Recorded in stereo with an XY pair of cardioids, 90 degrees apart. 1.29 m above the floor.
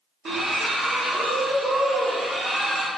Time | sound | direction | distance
0.2 | a splash | 50° right | 1.4 m